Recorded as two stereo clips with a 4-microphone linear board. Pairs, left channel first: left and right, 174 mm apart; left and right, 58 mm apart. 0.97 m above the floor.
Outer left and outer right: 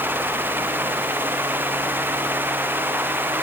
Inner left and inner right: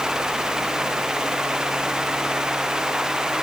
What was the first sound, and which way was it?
Only background noise.